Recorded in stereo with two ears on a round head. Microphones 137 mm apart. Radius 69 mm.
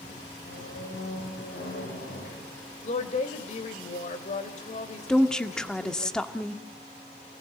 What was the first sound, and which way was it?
A squeak, 65° left (ahead or behind).